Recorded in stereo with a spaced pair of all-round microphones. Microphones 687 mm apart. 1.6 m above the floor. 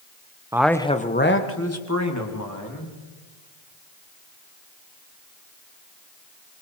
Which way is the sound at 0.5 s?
5° right (ahead or behind).